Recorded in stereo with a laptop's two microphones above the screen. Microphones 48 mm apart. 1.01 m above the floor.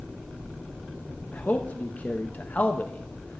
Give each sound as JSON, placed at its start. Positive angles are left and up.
{"t": 1.3, "sound": "a man speaking", "side_deg": 35, "distance_m": 0.8}